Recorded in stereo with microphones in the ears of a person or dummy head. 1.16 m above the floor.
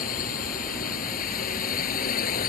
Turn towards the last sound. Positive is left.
turn(degrees=50)  # may be behind; listen again after turning